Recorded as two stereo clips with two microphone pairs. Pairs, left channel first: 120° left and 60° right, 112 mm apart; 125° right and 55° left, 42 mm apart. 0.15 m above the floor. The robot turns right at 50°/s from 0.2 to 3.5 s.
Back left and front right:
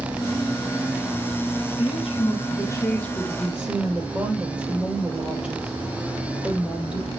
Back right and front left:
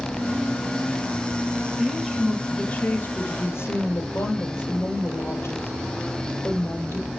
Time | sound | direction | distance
1.8 | a woman speaking | 135° left | 4.5 m